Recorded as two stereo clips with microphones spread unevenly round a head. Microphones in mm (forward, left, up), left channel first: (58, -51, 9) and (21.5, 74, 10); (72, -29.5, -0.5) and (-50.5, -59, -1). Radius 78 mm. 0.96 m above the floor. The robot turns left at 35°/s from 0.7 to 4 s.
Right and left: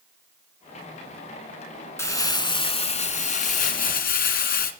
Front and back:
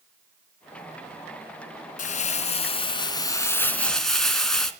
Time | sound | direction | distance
2.0 | crumpling | 5° right | 2.5 m